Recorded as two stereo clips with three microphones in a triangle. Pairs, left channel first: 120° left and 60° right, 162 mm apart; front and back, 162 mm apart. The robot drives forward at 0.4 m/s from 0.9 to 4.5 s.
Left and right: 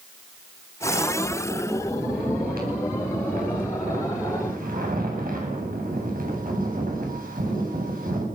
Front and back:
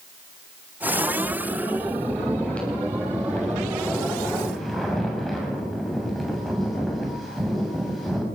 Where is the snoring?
80° right, 7.5 m; by 8.2 s 90° right, 7.5 m.